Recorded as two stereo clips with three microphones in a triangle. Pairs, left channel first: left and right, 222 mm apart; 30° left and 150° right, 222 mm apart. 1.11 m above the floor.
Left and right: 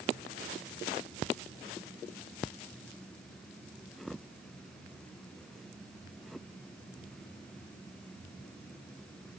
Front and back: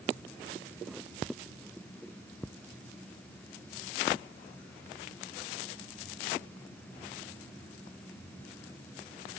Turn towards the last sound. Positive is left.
No sound to turn to.